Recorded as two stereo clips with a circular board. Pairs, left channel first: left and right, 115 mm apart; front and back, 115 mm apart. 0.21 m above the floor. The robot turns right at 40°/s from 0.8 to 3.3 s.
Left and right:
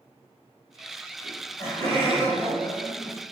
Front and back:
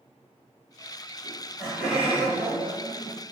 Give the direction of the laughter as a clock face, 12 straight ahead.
9 o'clock.